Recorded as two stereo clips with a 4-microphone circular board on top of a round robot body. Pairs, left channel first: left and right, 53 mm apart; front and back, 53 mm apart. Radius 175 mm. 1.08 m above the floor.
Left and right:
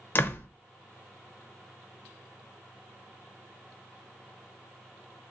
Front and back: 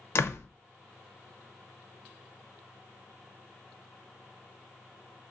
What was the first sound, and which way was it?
A door slam, 40° left.